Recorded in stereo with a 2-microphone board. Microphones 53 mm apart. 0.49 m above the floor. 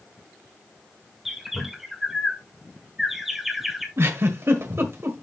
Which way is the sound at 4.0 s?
60° right (ahead or behind).